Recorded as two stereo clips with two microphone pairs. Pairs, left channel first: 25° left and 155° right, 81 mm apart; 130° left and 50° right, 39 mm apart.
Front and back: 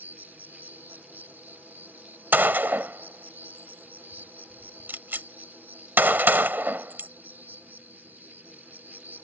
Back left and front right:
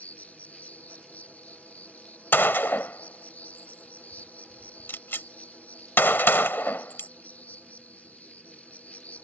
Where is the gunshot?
140° left.